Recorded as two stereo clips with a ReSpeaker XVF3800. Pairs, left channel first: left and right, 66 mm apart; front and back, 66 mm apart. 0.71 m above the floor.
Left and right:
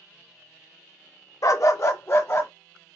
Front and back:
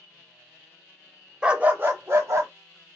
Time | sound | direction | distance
1.4 | a dog barking | 105° left | 0.6 m